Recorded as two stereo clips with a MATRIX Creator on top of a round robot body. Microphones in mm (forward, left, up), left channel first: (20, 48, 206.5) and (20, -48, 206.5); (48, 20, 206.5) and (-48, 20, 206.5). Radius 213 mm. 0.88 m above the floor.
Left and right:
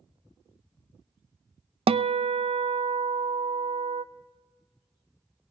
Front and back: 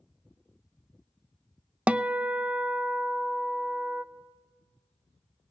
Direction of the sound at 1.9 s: 100° right.